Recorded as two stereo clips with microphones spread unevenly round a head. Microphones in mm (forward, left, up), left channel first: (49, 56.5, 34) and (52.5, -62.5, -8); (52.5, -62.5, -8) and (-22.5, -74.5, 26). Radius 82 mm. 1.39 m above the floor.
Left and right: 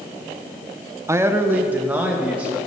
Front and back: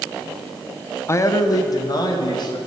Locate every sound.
1.1 s a man speaking: 30° right, 1.0 m; by 2.6 s 10° right, 3 m